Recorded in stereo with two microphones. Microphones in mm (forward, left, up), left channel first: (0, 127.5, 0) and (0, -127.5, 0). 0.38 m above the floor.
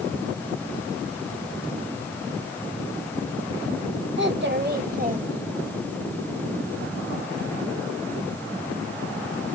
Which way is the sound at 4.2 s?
45° right (ahead or behind).